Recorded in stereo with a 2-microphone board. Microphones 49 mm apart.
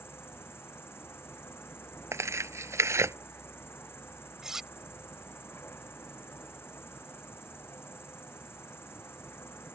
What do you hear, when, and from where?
0.0 s an insect: 55° left (ahead or behind)
2.1 s tearing paper: 80° right
4.4 s cutlery clinking: 10° right (ahead or behind)